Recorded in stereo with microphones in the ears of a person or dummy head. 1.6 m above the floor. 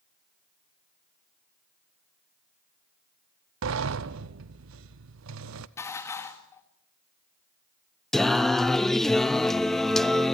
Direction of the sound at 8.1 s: 15° left (ahead or behind).